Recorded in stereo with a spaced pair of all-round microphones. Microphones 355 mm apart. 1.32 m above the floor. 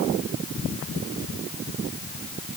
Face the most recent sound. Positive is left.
No sound to turn to.